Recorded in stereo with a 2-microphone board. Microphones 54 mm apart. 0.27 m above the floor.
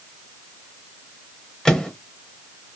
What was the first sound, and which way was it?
A microwave, 15° left (ahead or behind).